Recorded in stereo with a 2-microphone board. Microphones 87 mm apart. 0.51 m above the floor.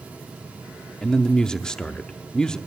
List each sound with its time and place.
1.0 s a man speaking: 10° left (ahead or behind), 0.6 m